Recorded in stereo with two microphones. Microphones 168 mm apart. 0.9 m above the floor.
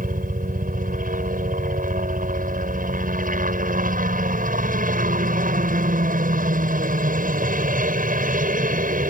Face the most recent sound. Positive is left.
turn(degrees=-55)  # may be behind; listen again after turning